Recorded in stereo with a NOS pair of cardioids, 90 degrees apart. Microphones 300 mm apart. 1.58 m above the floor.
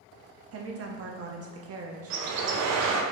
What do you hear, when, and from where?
0.5 s a woman speaking: 50° right, 0.7 m
2.1 s a bird: 55° right, 0.5 m